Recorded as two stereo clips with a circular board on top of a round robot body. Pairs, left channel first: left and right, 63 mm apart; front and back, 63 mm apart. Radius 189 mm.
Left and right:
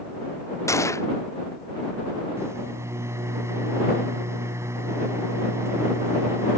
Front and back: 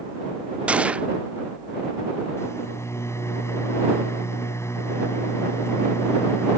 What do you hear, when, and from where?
0.7 s a gunshot: 115° left
2.4 s a microwave: 45° right